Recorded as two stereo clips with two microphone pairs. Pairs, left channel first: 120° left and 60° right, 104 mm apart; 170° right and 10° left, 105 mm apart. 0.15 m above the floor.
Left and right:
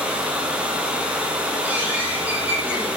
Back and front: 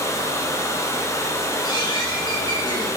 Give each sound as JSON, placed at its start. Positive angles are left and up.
{"t": 0.0, "sound": "running water", "azimuth_deg": -130, "distance_m": 1.1}
{"t": 1.6, "sound": "a bird", "azimuth_deg": -130, "distance_m": 2.0}